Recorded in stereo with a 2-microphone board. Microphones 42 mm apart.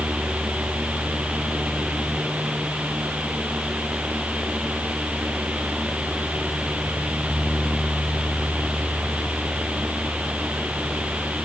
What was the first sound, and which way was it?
Only background noise.